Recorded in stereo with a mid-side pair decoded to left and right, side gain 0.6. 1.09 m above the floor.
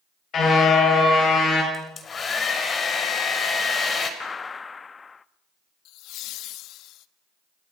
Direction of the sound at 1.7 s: 35° left.